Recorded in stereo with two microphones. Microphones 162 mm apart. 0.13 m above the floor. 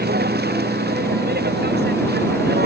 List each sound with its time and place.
0.0 s a vehicle: 80° right; by 2.7 s 85° right